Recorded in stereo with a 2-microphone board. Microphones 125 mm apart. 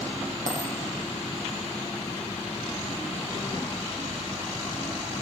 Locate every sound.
0.5 s a dropped coin: 80° right, 7.5 m